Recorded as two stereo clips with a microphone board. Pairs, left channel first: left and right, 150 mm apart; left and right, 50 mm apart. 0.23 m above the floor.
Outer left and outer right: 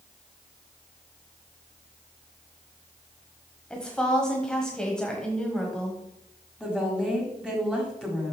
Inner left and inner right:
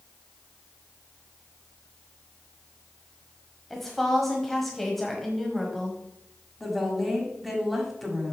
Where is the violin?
I don't hear a violin.